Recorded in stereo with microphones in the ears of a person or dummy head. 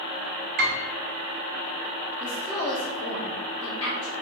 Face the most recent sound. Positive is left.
turn(degrees=15)  # may be behind; listen again after turning